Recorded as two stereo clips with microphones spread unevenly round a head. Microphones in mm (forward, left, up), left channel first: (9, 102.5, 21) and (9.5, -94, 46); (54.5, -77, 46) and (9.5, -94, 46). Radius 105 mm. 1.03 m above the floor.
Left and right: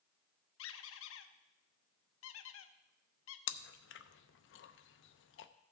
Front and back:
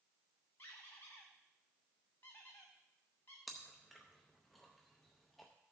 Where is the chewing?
110° left, 0.5 m.